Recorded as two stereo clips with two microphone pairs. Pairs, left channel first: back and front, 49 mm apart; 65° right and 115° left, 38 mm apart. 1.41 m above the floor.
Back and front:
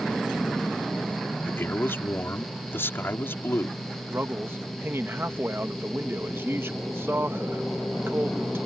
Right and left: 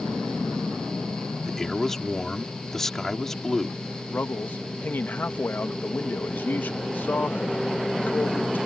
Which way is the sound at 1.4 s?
145° right.